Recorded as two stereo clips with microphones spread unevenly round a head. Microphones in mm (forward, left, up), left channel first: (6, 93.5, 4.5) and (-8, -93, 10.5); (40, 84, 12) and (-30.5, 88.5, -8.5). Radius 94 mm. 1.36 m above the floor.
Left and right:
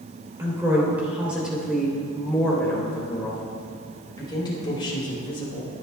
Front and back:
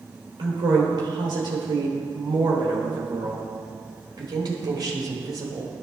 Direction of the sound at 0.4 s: 170° right.